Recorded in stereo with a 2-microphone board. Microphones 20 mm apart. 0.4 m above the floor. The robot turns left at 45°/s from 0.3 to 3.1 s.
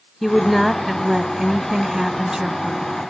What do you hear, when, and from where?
0.2 s a woman speaking: 10° left (ahead or behind), 1.3 m; by 2.9 s 30° right (ahead or behind), 1.3 m